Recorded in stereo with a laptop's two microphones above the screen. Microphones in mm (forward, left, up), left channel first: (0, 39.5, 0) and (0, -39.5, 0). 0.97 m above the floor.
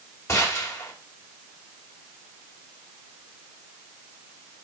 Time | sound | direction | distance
0.3 | a gunshot | 40° left (ahead or behind) | 2 m